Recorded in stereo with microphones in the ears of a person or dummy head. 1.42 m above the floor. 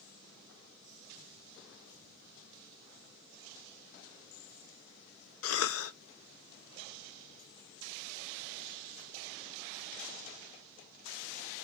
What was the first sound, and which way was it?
A cough, 70° left (ahead or behind).